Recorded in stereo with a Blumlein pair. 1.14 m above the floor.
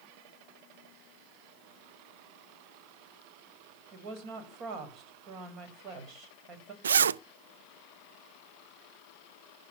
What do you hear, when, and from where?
3.9 s a woman speaking: 35° right, 6.5 m
6.8 s a zipper: 70° right, 0.5 m